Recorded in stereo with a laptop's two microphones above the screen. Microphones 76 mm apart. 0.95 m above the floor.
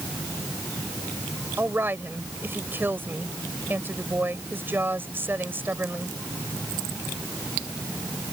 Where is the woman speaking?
30° right (ahead or behind).